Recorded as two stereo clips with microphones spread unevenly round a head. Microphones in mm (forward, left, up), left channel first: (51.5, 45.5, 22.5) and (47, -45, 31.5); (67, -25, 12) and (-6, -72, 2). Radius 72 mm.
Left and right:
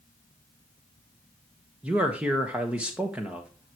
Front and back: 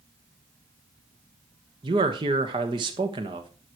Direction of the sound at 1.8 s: 175° right.